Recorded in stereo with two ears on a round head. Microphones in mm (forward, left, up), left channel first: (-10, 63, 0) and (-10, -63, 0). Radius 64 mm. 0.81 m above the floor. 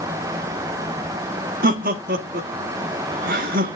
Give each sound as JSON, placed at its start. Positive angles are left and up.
{"t": 1.6, "sound": "laughter", "side_deg": -70, "distance_m": 1.4}